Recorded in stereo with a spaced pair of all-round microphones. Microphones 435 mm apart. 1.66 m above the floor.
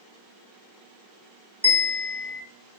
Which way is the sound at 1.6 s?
15° right (ahead or behind).